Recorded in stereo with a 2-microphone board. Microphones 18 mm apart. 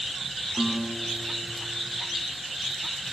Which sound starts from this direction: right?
A guitar, at 0.6 s.